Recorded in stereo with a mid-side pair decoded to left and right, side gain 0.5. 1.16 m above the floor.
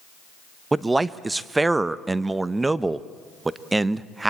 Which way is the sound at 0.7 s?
15° right.